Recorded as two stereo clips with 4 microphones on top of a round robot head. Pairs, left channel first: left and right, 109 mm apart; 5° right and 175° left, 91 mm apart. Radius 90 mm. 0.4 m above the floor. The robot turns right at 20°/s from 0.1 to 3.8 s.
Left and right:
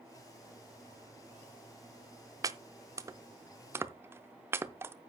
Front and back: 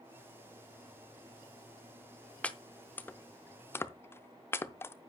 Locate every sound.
2.4 s chopping: 70° right, 0.6 m; by 4.9 s 45° right, 0.6 m